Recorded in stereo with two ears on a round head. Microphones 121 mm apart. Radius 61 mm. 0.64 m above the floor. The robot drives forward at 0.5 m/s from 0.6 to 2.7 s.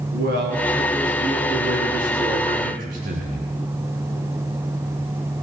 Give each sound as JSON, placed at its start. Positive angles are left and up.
{"t": 0.1, "sound": "a man speaking", "side_deg": -80, "distance_m": 6.0}